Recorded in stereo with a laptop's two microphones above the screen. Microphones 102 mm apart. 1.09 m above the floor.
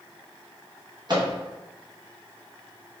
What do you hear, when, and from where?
1.1 s a microwave: 45° right (ahead or behind), 0.9 m